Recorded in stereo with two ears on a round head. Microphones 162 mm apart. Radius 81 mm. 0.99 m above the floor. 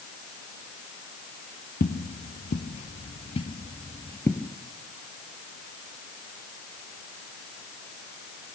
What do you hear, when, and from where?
1.8 s footsteps: 50° left (ahead or behind), 1.6 m; by 4.5 s 10° left (ahead or behind), 1.2 m